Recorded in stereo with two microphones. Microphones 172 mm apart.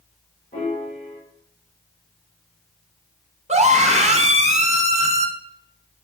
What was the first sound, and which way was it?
A piano, 40° left (ahead or behind).